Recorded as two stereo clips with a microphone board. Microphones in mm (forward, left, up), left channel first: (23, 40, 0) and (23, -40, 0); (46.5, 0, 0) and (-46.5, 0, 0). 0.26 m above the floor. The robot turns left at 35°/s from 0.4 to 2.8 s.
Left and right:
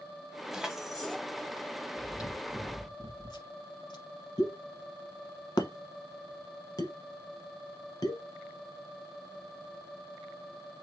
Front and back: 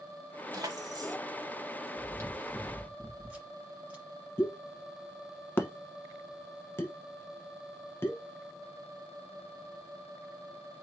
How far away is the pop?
About 0.9 m.